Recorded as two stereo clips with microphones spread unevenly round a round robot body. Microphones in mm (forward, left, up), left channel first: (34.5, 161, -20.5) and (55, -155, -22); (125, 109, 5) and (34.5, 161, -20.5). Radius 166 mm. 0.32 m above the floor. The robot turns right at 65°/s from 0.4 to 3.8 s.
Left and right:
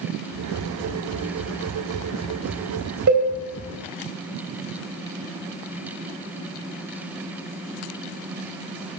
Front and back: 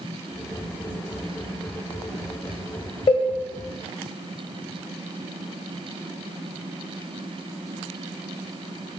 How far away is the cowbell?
About 1.8 m.